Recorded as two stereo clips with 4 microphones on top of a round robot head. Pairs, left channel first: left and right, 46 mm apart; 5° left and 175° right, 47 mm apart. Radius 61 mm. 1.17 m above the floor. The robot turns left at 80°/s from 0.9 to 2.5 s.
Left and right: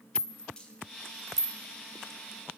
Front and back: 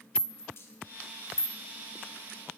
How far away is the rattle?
About 0.7 m.